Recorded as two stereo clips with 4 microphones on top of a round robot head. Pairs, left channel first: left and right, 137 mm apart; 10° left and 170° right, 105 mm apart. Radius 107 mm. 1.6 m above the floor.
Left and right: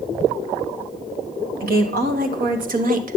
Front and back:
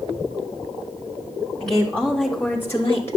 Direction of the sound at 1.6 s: 80° right.